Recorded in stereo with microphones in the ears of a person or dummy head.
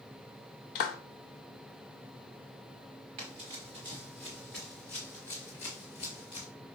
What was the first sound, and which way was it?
A clap, 50° left (ahead or behind).